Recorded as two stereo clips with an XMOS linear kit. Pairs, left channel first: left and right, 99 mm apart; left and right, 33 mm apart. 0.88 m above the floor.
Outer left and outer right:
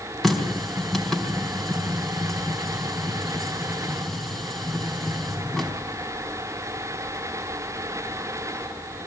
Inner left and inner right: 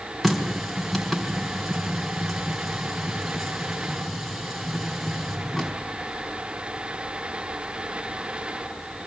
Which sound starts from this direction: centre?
A running tap, at 0.2 s.